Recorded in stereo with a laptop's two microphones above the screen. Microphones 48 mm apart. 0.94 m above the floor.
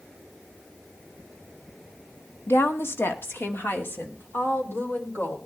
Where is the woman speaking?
60° left (ahead or behind), 1.4 m; by 5.4 s 45° left (ahead or behind), 4 m.